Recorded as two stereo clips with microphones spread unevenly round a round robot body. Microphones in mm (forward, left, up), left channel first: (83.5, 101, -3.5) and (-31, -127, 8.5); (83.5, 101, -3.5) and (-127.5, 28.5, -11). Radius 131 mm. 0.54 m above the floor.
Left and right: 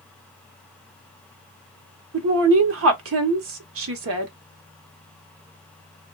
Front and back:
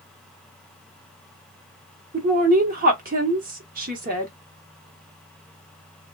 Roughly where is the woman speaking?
Behind right.